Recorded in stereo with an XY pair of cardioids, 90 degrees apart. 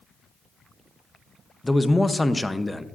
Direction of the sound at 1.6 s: 15° left.